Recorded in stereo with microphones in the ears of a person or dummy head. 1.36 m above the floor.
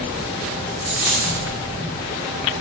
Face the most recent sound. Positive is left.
turn(degrees=-15)  # may be behind; listen again after turning